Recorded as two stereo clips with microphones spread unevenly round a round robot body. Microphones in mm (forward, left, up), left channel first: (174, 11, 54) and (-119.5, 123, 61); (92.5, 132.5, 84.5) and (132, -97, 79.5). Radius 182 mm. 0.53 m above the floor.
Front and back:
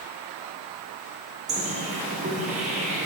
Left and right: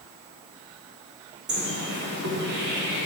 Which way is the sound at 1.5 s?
130° right.